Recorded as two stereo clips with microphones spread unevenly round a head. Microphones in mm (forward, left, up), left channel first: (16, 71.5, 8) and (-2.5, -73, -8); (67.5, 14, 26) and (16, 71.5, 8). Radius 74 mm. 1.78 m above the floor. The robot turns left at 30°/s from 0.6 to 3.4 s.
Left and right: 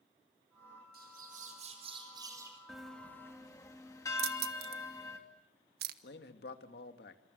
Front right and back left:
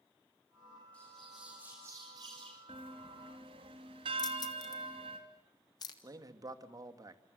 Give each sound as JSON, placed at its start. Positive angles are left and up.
{"t": 0.9, "sound": "a bird", "azimuth_deg": -125, "distance_m": 5.0}
{"t": 2.7, "sound": "a bell", "azimuth_deg": 175, "distance_m": 3.0}
{"t": 4.2, "sound": "keys jangling", "azimuth_deg": -85, "distance_m": 1.3}
{"t": 6.0, "sound": "a man speaking", "azimuth_deg": 90, "distance_m": 2.5}